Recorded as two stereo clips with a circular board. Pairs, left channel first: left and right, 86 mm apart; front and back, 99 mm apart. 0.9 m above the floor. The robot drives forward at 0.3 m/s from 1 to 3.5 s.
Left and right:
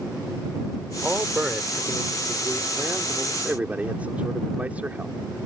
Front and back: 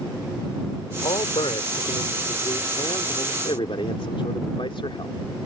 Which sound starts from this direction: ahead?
A man speaking, at 1.0 s.